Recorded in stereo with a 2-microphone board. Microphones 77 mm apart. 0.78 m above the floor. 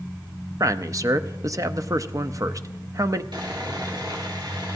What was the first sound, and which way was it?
A man speaking, 45° right (ahead or behind).